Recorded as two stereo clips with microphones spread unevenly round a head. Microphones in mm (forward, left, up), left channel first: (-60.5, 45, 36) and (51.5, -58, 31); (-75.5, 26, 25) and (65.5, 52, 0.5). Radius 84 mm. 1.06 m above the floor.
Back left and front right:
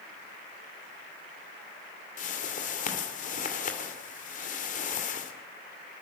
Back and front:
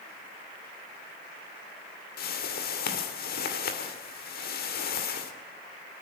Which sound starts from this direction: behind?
A whoosh, at 2.2 s.